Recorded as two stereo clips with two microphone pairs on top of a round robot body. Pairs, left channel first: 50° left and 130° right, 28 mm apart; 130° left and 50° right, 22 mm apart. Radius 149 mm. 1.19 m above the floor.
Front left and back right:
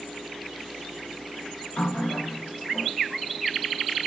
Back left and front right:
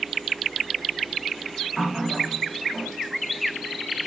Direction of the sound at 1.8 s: 40° left.